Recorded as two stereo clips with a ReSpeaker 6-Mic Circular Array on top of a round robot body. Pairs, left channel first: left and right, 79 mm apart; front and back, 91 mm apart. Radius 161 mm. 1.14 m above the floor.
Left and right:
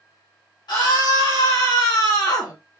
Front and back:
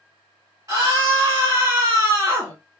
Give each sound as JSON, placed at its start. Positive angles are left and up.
{"t": 0.7, "sound": "a scream", "azimuth_deg": 125, "distance_m": 2.5}